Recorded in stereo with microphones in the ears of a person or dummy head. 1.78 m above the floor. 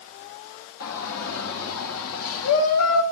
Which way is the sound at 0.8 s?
85° left.